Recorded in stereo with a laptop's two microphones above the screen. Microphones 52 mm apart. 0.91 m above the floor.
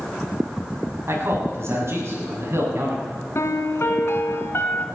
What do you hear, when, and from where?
1.1 s a man speaking: 55° right (ahead or behind), 7 m
3.4 s a piano: 60° left (ahead or behind), 1.7 m